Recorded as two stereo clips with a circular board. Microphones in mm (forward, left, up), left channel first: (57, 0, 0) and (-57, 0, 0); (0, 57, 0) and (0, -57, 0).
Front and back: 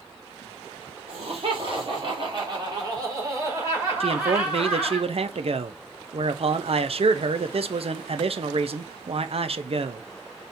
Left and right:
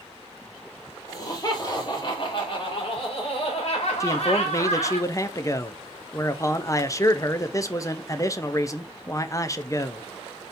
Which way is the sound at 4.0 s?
150° left.